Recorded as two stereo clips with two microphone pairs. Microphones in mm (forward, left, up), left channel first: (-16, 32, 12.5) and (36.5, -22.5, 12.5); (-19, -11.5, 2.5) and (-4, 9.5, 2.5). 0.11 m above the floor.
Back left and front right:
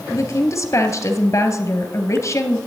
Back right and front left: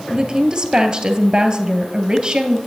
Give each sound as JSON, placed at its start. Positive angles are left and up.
{"t": 0.1, "sound": "a woman speaking", "azimuth_deg": 105, "distance_m": 2.0}